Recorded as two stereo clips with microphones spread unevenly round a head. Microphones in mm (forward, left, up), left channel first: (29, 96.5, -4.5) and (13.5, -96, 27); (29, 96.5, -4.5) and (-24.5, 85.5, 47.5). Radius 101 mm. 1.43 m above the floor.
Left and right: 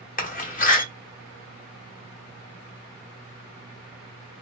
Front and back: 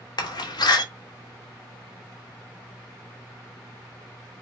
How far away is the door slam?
About 1.1 m.